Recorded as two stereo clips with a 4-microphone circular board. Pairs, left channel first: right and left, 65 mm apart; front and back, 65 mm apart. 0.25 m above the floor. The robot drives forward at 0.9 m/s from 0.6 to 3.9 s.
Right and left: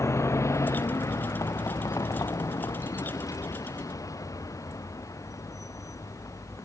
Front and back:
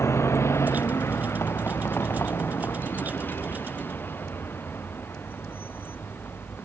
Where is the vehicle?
45° right; by 6.7 s 55° right.